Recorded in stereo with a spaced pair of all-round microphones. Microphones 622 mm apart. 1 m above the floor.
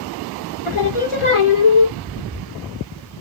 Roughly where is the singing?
Left.